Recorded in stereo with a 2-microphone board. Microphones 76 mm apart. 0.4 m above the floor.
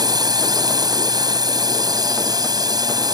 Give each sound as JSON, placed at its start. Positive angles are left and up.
{"t": 0.0, "sound": "a drone", "side_deg": -55}